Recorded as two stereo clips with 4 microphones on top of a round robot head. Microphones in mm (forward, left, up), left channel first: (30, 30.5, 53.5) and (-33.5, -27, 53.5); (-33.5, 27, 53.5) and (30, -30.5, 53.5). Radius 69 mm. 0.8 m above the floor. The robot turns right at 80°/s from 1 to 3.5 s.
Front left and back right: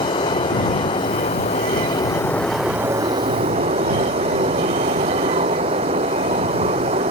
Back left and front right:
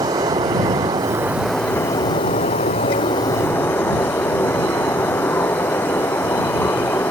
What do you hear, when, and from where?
0.0 s running water: 10° left; by 7.1 s 150° right